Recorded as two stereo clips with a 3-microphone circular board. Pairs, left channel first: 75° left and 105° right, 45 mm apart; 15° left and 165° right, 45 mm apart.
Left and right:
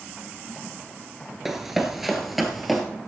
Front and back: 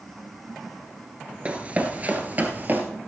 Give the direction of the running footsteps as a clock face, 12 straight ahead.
6 o'clock.